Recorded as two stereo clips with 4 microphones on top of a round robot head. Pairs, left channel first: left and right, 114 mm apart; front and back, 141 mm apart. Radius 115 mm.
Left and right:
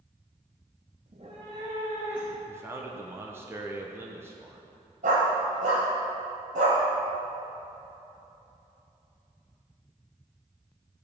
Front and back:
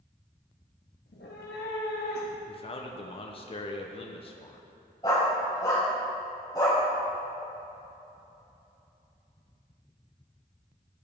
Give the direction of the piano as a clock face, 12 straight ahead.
I don't hear a piano.